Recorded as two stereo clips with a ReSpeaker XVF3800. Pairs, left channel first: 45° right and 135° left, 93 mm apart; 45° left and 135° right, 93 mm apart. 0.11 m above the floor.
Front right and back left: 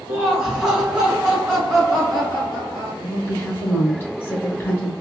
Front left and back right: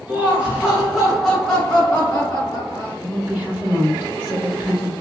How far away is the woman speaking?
About 1.9 m.